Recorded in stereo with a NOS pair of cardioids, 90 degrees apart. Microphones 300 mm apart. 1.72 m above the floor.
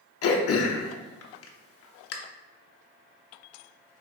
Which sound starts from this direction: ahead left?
Throat clearing, at 0.2 s.